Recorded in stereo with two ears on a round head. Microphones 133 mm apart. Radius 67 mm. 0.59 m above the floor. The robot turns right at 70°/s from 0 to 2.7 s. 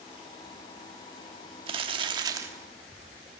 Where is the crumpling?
90° right, 1.2 m; by 2.5 s 30° right, 1.2 m.